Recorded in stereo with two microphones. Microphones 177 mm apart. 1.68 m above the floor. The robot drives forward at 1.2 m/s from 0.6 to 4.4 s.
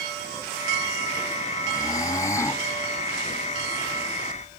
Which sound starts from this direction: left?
Snoring, at 1.7 s.